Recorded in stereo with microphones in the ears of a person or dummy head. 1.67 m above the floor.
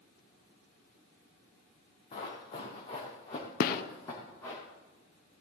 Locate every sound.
2.1 s running footsteps: 30° left (ahead or behind), 4 m; by 4.6 s 15° left (ahead or behind), 4.5 m
3.6 s a gunshot: 70° left (ahead or behind), 0.8 m